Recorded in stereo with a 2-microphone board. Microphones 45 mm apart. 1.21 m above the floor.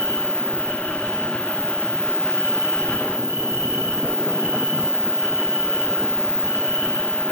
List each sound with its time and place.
0.0 s an insect: 80° right, 2.0 m